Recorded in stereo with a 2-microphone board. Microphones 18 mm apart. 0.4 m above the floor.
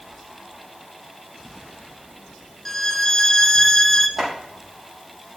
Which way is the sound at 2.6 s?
20° left (ahead or behind).